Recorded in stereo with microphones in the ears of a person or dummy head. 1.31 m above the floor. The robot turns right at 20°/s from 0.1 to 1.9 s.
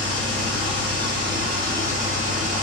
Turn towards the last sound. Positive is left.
turn(degrees=-50)